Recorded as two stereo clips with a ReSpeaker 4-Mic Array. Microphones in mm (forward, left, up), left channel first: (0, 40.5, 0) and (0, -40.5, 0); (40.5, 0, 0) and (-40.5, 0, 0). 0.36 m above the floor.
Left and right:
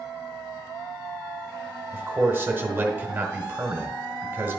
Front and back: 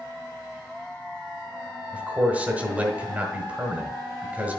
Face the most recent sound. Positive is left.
turn(degrees=-125)